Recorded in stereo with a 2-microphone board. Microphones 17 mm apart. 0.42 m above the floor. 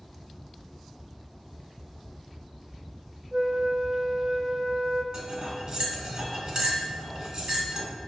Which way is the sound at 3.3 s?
50° right (ahead or behind).